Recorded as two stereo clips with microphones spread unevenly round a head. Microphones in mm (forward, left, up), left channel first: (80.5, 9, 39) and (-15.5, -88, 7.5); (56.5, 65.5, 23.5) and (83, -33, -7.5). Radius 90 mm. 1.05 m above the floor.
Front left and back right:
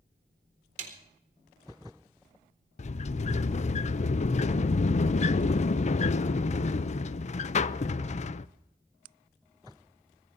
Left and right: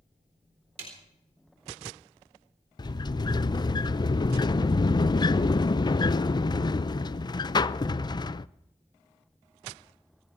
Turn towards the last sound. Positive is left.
turn(degrees=55)